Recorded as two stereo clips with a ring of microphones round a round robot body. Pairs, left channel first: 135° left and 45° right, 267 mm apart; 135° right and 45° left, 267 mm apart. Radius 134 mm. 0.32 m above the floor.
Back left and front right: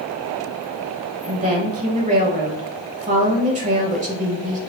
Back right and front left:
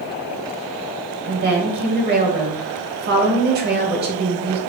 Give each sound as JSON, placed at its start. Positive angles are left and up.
{"t": 1.2, "sound": "a woman speaking", "azimuth_deg": 5, "distance_m": 1.1}